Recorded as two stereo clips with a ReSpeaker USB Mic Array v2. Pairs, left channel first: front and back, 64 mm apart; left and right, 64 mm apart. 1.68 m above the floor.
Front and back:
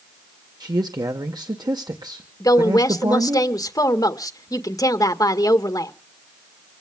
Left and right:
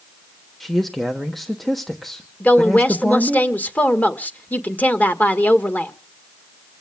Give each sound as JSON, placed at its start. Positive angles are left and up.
{"t": 0.6, "sound": "a man speaking", "azimuth_deg": 175, "distance_m": 1.3}
{"t": 2.4, "sound": "a woman speaking", "azimuth_deg": 25, "distance_m": 1.8}